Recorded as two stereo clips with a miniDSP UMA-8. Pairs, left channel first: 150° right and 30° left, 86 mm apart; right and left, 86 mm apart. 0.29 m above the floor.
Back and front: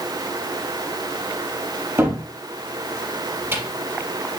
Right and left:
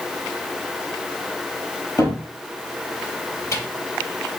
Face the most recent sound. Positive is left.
turn(degrees=-35)